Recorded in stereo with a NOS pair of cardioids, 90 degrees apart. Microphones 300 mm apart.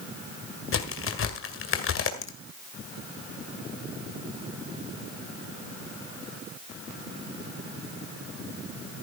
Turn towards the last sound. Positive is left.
turn(degrees=45)